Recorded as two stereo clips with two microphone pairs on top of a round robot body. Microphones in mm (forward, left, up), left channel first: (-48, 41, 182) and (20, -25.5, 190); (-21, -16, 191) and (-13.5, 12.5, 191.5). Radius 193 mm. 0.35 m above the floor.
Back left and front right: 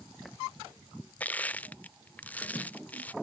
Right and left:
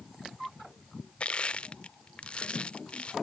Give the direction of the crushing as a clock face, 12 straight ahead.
5 o'clock.